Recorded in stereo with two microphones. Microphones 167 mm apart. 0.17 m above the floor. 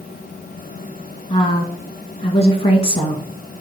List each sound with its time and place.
1.3 s a woman speaking: 35° left (ahead or behind), 1.5 m